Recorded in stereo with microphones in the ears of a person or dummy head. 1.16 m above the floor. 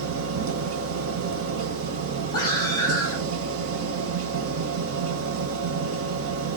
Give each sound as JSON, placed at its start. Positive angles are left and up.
{"t": 0.0, "sound": "a machine running", "side_deg": -70, "distance_m": 0.9}
{"t": 2.3, "sound": "a scream", "side_deg": 15, "distance_m": 4.0}